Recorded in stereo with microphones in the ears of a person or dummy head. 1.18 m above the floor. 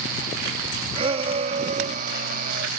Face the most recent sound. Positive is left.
turn(degrees=-55)  # may be behind; listen again after turning